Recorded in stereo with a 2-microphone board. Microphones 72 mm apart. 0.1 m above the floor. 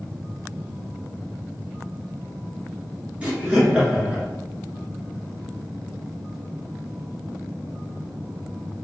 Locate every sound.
3.2 s laughter: 15° right (ahead or behind), 1.1 m